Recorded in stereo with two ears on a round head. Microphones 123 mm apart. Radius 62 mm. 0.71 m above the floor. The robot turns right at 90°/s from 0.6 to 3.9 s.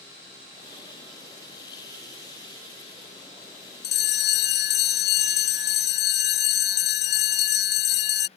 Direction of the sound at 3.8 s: 80° left.